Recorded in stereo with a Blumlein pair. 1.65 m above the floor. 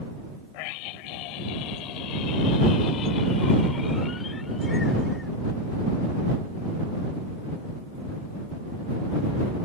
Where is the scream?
45° left; by 5.3 s 10° left.